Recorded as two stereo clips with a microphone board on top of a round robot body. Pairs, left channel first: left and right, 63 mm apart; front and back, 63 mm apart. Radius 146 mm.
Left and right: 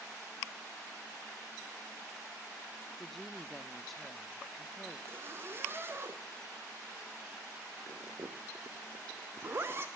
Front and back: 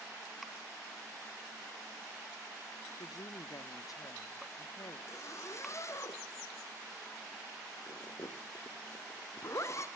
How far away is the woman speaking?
About 1.2 m.